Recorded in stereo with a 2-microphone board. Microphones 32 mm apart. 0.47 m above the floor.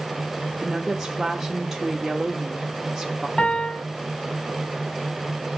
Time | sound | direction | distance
0.6 | a woman speaking | 10° right (ahead or behind) | 0.8 m
3.4 | a piano | 45° left (ahead or behind) | 2.5 m